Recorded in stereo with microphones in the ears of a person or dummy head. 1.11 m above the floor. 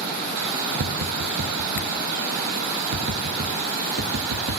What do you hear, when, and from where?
0.8 s tapping: 70° right (ahead or behind), 3.5 m